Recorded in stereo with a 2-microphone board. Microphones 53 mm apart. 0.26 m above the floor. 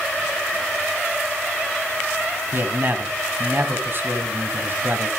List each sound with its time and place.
2.5 s a man speaking: 45° right (ahead or behind), 2 m